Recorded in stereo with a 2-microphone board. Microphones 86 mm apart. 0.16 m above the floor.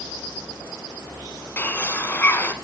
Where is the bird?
25° left (ahead or behind), 0.7 m.